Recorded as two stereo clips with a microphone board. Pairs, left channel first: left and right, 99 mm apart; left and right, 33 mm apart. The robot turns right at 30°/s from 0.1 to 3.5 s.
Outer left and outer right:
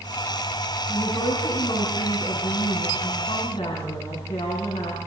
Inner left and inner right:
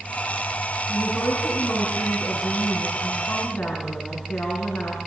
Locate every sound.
0.9 s a woman speaking: 25° left, 7.5 m; by 5.1 s 105° left, 7.5 m